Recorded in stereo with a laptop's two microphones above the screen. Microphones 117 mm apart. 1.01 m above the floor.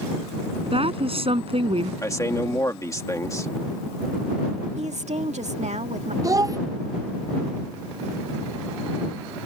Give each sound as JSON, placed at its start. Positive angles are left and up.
{"t": 0.7, "sound": "a woman speaking", "side_deg": -55}
{"t": 2.0, "sound": "a man speaking", "side_deg": 25}
{"t": 4.8, "sound": "a woman speaking", "side_deg": -75}
{"t": 6.2, "sound": "a child speaking", "side_deg": -30}